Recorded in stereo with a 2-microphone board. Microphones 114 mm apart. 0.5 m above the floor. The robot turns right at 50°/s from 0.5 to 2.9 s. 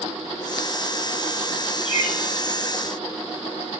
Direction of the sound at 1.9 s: 65° left (ahead or behind).